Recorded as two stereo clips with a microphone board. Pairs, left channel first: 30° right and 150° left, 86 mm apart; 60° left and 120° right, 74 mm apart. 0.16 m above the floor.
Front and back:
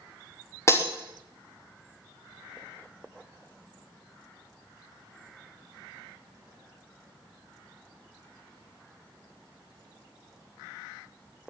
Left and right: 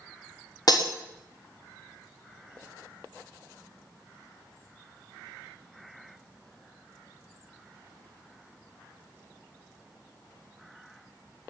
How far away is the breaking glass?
About 3.5 m.